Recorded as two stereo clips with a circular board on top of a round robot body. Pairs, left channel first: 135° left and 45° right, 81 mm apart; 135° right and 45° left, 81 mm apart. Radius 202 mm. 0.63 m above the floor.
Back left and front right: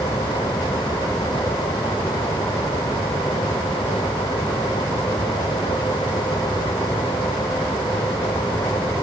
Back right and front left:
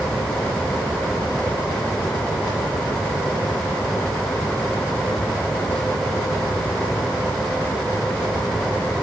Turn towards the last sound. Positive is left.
No sound to turn to.